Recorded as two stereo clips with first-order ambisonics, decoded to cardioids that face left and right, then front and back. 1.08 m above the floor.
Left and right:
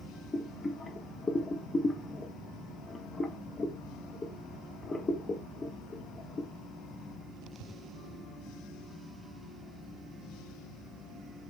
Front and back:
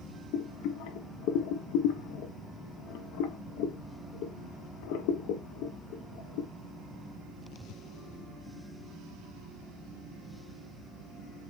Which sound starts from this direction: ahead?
Boiling, at 0.3 s.